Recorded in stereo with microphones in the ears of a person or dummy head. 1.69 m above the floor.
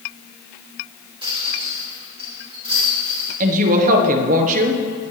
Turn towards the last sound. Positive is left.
turn(degrees=-40)  # may be behind; listen again after turning